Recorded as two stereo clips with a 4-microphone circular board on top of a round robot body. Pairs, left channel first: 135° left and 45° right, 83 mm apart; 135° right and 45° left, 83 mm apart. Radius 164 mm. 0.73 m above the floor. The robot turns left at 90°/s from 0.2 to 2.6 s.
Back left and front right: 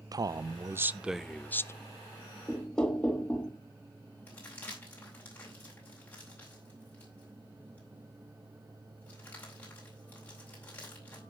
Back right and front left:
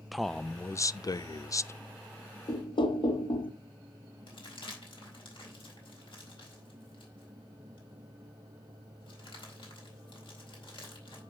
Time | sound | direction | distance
0.1 | a man speaking | 45° right | 0.6 m
2.5 | knocking | 135° right | 1.2 m
4.3 | crumpling | 155° right | 4 m